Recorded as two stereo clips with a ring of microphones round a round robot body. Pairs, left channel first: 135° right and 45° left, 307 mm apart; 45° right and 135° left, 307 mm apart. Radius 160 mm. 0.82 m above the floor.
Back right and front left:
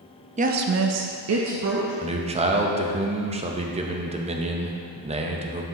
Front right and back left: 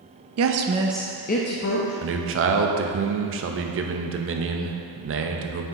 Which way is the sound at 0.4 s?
110° left.